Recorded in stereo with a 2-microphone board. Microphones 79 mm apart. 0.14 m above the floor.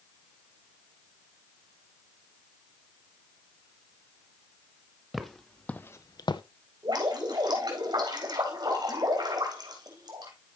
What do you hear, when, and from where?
5.1 s footsteps: 5° right (ahead or behind), 1.4 m; by 6.4 s 75° left (ahead or behind), 0.7 m
6.8 s dripping: 60° right (ahead or behind), 4 m